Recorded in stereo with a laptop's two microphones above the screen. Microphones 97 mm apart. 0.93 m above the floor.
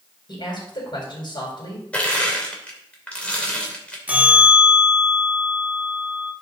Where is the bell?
15° right (ahead or behind), 2 m.